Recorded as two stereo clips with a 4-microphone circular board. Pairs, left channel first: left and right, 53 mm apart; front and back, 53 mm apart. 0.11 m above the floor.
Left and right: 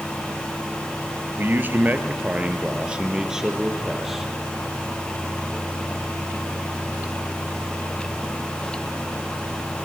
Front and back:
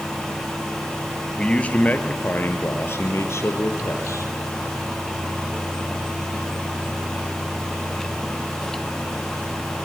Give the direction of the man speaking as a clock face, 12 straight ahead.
2 o'clock.